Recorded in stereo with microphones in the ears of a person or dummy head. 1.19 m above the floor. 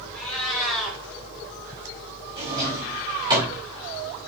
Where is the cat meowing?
Centre (ahead or behind), 3 m.